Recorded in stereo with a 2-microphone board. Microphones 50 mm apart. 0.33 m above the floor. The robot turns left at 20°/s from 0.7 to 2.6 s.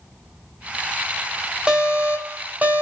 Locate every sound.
1.7 s an alarm: 25° right (ahead or behind), 3 m; by 2.8 s 40° right (ahead or behind), 3 m